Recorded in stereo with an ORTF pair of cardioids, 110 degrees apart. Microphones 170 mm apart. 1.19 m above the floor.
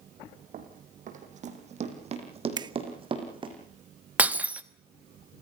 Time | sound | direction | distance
0.5 | running footsteps | 55° right | 3.5 m
2.6 | a finger snap | 25° right | 0.8 m
4.2 | breaking glass | 10° right | 1.1 m